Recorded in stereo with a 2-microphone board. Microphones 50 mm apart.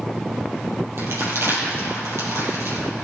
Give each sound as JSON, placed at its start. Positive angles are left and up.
{"t": 1.0, "sound": "crumpling", "side_deg": -60, "distance_m": 4.0}